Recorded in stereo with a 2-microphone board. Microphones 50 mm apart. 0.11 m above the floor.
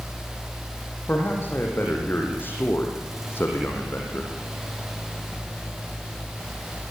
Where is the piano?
I don't hear a piano.